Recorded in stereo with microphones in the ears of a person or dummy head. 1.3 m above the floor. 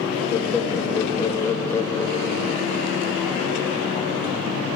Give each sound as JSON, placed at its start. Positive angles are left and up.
{"t": 0.3, "sound": "laughter", "side_deg": 15, "distance_m": 2.0}